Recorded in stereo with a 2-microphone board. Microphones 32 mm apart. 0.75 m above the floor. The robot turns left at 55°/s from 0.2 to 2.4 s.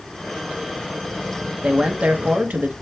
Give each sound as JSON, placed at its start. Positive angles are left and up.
{"t": 1.6, "sound": "a man speaking", "azimuth_deg": -35, "distance_m": 0.7}